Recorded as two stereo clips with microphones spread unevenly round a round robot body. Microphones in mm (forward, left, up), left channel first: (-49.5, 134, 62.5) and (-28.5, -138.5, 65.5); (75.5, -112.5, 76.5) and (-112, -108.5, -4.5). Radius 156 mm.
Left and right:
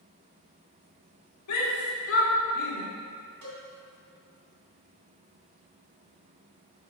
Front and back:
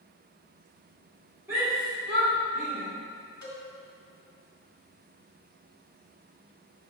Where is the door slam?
I don't hear a door slam.